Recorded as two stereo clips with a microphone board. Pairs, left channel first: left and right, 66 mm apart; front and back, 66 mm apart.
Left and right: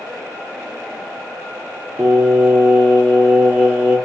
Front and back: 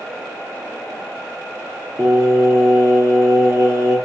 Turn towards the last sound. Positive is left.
turn(degrees=-160)